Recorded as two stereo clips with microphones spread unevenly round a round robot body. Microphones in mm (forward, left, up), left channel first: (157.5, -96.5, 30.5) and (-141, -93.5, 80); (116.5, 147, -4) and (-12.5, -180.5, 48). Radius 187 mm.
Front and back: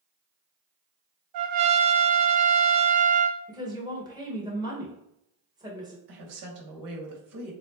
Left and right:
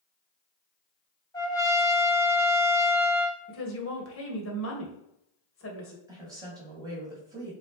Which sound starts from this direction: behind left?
A trumpet, at 1.3 s.